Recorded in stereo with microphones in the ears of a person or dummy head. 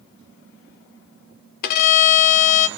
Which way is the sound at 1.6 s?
55° left (ahead or behind).